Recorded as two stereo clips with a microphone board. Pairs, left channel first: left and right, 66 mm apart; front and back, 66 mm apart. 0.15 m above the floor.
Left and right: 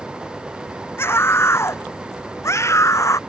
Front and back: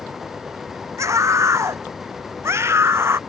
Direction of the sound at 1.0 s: 140° left.